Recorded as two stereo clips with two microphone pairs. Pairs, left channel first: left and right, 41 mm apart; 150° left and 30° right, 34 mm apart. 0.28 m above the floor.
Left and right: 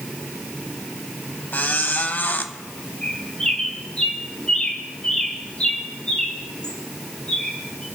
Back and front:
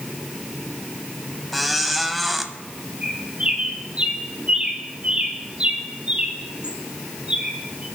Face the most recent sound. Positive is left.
turn(degrees=25)